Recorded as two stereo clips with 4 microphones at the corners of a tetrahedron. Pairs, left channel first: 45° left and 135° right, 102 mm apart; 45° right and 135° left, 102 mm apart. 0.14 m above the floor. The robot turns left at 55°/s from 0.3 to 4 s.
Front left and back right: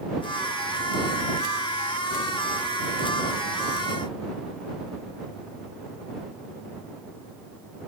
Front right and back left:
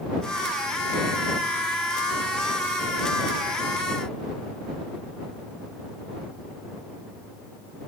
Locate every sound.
Only background noise.